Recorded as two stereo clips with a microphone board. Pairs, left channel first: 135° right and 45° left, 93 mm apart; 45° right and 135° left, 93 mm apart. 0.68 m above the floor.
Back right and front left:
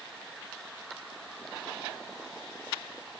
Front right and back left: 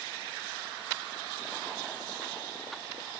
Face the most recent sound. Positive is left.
No sound to turn to.